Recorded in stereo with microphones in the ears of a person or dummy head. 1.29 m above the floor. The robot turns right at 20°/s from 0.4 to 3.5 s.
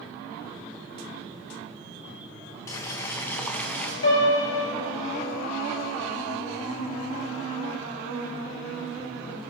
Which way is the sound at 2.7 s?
15° left (ahead or behind).